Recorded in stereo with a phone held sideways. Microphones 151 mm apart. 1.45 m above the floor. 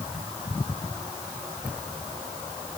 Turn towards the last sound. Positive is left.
No sound to turn to.